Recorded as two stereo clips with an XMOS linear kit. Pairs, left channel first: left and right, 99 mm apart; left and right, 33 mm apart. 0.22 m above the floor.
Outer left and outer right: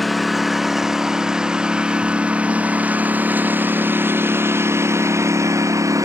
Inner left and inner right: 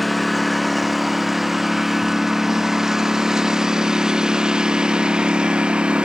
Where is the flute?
No flute in this recording.